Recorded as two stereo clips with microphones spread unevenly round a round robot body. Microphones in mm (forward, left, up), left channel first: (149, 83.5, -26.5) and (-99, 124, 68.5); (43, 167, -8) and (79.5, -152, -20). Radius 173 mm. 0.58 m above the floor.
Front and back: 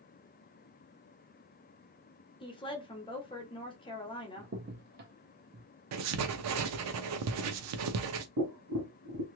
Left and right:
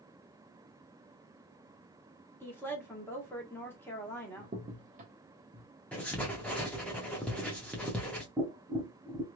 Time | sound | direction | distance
2.4 | a woman speaking | 15° left | 1.3 m
4.4 | a crack | 125° right | 0.6 m
5.9 | writing | 175° right | 0.5 m
8.4 | tapping | 160° right | 0.6 m